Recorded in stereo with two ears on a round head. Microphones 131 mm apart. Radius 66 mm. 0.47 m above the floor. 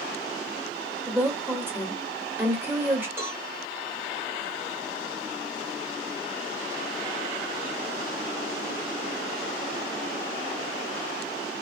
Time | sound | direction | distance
1.1 | a woman speaking | 15° right (ahead or behind) | 1.1 m
3.2 | a cowbell | 15° right (ahead or behind) | 1.7 m